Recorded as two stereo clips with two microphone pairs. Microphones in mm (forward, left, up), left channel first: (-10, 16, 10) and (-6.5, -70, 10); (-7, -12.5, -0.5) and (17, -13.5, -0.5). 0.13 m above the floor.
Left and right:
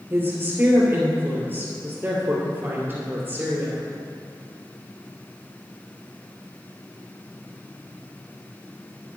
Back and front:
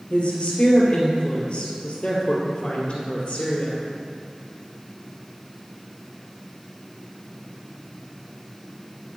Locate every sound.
0.1 s a woman speaking: 150° right, 2.5 m